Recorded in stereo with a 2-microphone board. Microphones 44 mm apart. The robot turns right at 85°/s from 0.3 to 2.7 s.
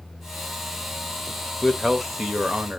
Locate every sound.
1.6 s a man speaking: 10° left (ahead or behind), 0.9 m; by 2.8 s 25° right (ahead or behind), 0.9 m